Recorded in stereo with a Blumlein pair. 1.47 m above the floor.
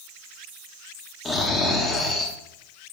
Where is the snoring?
15° left, 1.6 m.